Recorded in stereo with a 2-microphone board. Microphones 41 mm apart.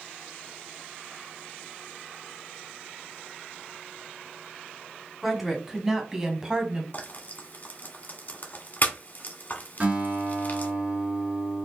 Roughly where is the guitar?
Right.